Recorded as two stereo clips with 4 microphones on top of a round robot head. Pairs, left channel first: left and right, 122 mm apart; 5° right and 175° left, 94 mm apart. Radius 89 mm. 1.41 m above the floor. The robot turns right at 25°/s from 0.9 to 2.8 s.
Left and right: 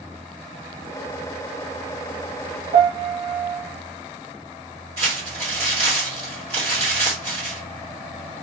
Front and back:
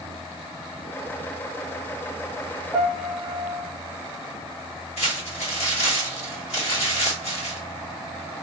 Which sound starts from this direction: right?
A piano, at 2.7 s.